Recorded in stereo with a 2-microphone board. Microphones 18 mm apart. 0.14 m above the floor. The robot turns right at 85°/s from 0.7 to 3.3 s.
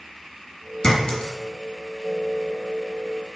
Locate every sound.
0.8 s a clink: 50° left (ahead or behind), 1.5 m